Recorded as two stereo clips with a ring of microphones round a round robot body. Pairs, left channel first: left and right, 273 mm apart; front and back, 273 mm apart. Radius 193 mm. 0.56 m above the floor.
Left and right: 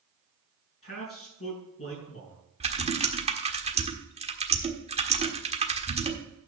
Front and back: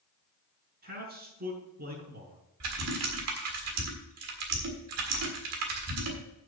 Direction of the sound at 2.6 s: 155° right.